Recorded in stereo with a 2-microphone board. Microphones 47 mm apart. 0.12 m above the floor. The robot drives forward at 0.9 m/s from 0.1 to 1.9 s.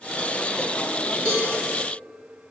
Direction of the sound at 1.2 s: 30° left (ahead or behind).